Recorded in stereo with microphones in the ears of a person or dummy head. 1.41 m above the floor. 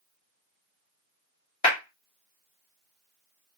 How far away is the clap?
About 2.0 m.